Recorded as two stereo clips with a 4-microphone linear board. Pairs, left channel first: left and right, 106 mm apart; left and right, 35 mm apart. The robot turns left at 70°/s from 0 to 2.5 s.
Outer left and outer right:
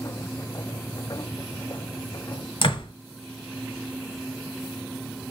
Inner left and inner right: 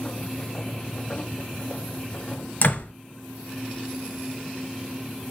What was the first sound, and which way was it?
A door slam, 55° left (ahead or behind).